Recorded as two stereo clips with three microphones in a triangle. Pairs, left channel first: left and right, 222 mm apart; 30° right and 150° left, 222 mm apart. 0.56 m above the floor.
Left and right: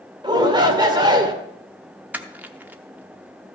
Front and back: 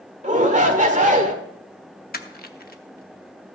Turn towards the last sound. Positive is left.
turn(degrees=-10)